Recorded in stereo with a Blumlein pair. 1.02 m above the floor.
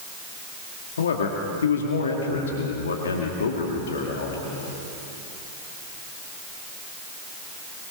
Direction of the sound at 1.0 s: 65° left.